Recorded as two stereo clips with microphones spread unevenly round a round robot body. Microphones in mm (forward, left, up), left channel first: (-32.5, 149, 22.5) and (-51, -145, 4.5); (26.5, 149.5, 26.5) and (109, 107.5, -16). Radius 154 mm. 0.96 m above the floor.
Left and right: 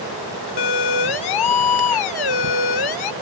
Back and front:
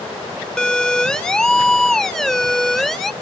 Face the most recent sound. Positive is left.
turn(degrees=70)